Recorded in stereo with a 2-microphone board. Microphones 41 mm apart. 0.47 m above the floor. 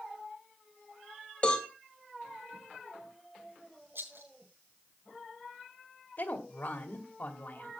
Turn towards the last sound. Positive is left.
turn(degrees=50)  # may be behind; listen again after turning